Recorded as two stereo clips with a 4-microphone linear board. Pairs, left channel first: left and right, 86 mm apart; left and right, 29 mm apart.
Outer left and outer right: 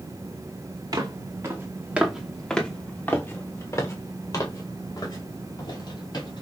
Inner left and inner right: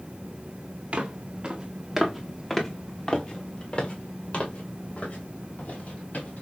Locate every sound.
0.9 s footsteps: 50° right (ahead or behind), 1.2 m; by 6.4 s 60° left (ahead or behind), 3 m